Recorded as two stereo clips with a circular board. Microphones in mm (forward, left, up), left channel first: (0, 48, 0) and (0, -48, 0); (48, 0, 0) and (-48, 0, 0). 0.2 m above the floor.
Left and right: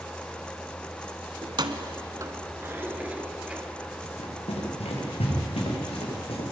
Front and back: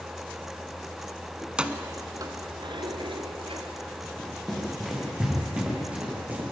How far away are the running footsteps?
About 6.5 m.